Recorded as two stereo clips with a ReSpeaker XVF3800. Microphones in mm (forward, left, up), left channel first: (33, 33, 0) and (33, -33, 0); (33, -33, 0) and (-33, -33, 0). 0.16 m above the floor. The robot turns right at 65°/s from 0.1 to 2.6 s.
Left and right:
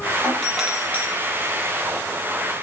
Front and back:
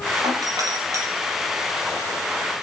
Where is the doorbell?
160° left, 7.5 m; by 1.0 s 145° right, 7.5 m.